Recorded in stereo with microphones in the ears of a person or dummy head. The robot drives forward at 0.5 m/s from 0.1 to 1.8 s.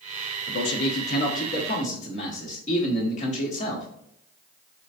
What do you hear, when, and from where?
0.5 s a man speaking: 65° left (ahead or behind), 0.8 m; by 3.9 s 40° left (ahead or behind), 1.1 m